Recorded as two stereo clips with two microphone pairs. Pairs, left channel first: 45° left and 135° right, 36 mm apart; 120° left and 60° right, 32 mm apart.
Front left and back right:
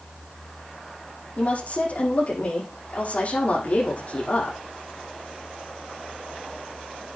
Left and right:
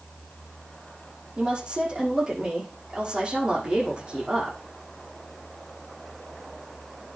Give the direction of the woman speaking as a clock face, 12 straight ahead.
12 o'clock.